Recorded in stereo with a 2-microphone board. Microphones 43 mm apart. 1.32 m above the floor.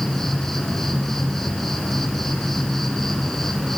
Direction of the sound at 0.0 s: 5° left (ahead or behind).